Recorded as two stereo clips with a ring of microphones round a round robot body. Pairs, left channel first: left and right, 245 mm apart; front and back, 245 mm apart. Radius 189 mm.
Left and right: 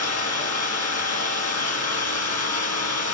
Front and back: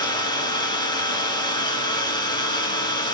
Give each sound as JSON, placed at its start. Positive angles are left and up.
{"t": 0.0, "sound": "an engine running", "azimuth_deg": 75, "distance_m": 5.0}